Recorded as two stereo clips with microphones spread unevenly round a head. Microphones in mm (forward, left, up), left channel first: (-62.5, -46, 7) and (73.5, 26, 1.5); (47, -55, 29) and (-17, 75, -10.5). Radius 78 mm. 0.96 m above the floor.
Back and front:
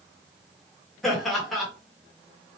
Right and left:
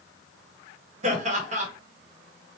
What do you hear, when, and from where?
1.0 s laughter: 120° left, 1.8 m